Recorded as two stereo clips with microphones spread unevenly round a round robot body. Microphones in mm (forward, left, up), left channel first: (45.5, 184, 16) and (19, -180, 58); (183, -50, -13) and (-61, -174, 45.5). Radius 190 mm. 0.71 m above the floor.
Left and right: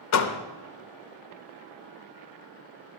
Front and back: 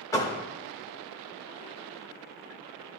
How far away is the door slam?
About 0.7 m.